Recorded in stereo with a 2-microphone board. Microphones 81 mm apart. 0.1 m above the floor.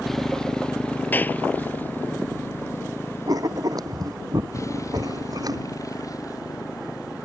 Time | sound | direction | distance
0.0 | a motorcycle | centre (ahead or behind) | ?
1.1 | a clap | 25° left (ahead or behind) | ?
3.3 | writing | 50° right (ahead or behind) | ?